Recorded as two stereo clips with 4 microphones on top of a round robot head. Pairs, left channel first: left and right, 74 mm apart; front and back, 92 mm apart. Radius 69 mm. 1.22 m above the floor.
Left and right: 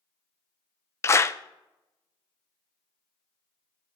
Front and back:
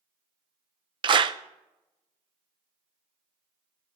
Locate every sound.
1.0 s a clap: 145° left, 0.6 m